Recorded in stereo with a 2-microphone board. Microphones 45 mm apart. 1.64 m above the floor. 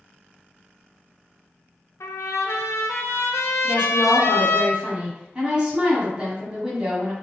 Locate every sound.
2.0 s a trumpet: 85° left, 0.6 m
3.6 s a woman speaking: 20° right (ahead or behind), 1.5 m